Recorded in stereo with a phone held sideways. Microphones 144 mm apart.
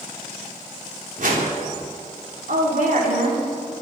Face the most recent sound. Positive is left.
turn(degrees=-70)  # may be behind; listen again after turning